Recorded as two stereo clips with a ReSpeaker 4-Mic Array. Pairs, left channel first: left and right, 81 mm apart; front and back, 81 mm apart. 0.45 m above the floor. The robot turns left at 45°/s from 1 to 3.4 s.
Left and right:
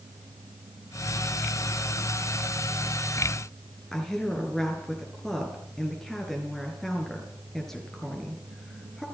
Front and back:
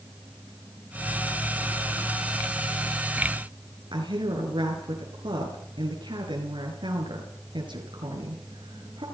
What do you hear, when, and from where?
3.9 s a woman speaking: 175° left, 7.5 m